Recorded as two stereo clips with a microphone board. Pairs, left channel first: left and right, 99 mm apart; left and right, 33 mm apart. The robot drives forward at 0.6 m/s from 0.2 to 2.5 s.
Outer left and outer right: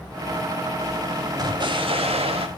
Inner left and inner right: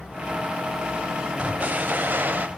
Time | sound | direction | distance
1.4 | an explosion | 40° right (ahead or behind) | 0.7 m